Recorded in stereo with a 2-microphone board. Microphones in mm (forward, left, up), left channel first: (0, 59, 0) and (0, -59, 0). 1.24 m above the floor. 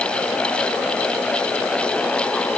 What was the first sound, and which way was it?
Only background noise.